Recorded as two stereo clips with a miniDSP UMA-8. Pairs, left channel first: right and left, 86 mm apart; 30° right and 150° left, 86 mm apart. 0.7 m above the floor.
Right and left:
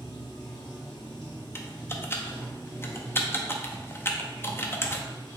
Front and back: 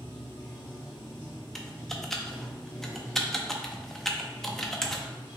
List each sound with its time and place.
0.0 s running water: 90° right, 1.7 m
1.6 s typing on a keyboard: 110° right, 0.5 m